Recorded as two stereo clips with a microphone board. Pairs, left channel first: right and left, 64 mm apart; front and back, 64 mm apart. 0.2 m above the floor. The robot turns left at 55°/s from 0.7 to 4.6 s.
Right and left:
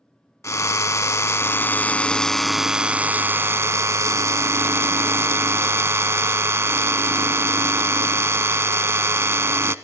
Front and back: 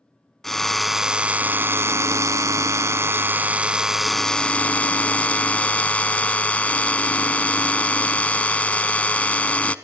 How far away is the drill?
About 0.7 m.